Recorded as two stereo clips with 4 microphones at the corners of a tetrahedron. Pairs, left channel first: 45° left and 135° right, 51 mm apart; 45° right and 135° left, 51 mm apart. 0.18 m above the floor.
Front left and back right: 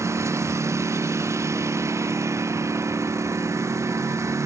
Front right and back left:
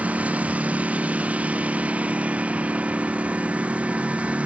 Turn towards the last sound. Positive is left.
turn(degrees=-160)